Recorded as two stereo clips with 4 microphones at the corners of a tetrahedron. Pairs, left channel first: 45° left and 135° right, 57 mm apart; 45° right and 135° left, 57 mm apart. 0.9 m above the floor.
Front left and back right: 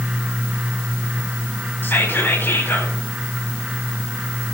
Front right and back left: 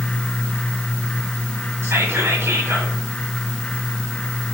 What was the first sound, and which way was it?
Whispering, 100° left.